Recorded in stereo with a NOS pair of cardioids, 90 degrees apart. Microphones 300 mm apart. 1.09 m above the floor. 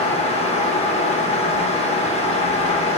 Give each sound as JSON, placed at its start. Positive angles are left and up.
{"t": 0.0, "sound": "a fan", "azimuth_deg": 20, "distance_m": 0.8}